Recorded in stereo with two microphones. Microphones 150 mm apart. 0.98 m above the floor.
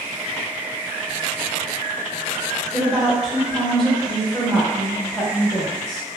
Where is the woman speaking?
Centre (ahead or behind), 0.9 m.